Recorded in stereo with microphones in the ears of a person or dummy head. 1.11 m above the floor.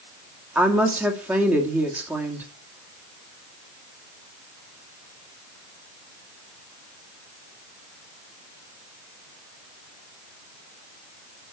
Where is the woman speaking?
10° right (ahead or behind), 2 m.